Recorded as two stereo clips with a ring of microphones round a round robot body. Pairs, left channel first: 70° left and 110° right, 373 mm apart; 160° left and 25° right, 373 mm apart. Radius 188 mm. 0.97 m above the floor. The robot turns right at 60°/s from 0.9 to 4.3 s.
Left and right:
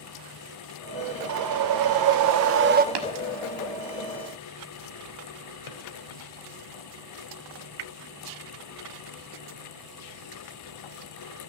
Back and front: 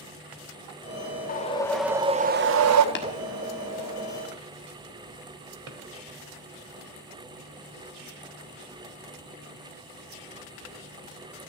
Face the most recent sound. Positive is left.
turn(degrees=30)